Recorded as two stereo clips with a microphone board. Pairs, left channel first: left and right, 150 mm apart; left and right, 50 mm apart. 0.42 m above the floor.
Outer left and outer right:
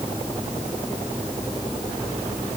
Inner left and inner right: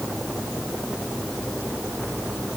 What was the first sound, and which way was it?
Only background noise.